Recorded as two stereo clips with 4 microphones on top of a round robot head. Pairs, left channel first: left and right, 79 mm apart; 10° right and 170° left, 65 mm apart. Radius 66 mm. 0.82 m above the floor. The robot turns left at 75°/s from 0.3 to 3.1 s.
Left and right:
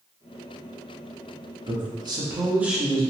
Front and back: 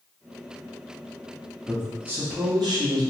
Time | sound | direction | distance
1.7 | a man speaking | 90° right | 0.9 m